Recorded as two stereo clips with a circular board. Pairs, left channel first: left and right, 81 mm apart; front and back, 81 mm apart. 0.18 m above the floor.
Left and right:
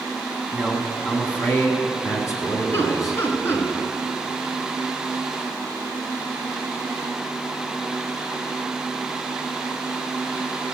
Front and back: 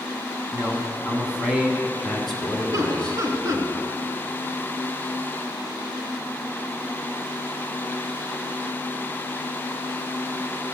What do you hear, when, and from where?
0.5 s a man speaking: 170° left, 1.4 m; by 3.7 s 70° left, 2.5 m
2.7 s laughter: 140° left, 2 m